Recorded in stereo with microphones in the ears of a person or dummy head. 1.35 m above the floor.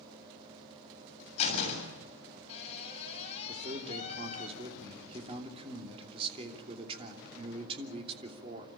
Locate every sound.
1.4 s a door slam: 35° left (ahead or behind), 7 m
3.5 s a man speaking: 30° right (ahead or behind), 3 m